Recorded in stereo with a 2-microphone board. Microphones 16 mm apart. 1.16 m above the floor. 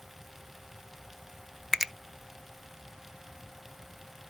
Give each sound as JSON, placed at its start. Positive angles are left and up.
{"t": 1.7, "sound": "a finger snap", "side_deg": -20, "distance_m": 0.5}